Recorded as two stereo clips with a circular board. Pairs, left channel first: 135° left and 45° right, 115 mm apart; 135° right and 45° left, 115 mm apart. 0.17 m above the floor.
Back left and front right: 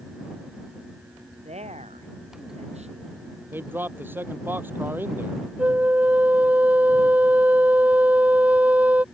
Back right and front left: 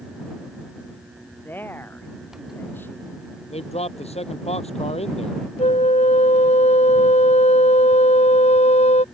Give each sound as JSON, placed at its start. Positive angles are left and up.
{"t": 1.4, "sound": "a woman speaking", "azimuth_deg": -60}
{"t": 3.5, "sound": "a man speaking", "azimuth_deg": -115}
{"t": 5.6, "sound": "a flute", "azimuth_deg": -120}